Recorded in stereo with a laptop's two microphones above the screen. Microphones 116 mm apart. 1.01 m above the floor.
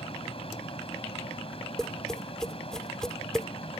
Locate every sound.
0.0 s a fan: 55° left (ahead or behind)
1.8 s tapping: 5° left (ahead or behind)